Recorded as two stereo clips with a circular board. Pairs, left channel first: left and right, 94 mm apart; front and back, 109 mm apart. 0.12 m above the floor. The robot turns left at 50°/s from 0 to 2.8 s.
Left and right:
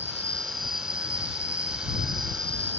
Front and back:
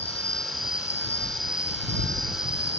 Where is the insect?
20° right; by 2.8 s 160° right.